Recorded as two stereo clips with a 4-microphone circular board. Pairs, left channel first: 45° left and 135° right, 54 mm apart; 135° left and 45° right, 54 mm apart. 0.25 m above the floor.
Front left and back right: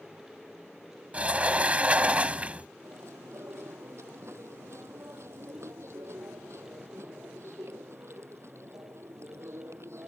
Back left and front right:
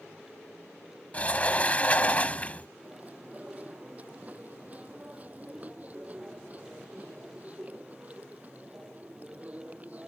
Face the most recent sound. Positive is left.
turn(degrees=-105)